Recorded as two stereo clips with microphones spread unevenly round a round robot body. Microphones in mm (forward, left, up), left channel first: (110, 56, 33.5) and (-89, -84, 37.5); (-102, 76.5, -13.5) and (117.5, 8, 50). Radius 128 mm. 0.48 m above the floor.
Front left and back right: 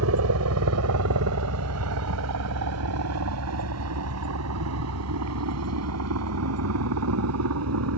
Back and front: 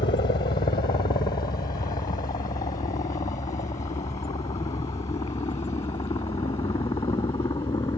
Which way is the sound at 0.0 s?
140° right.